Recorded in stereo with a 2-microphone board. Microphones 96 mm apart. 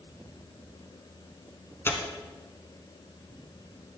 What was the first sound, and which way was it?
Tearing paper, 25° left (ahead or behind).